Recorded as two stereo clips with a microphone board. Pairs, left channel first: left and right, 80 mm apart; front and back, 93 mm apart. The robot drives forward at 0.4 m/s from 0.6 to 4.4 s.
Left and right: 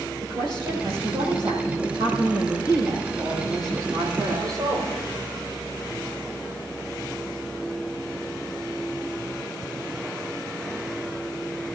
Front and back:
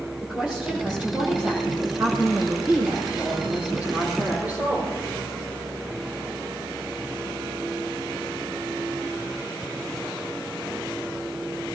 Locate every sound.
0.2 s a woman speaking: 100° right, 8.5 m; by 4.9 s 110° right, 9 m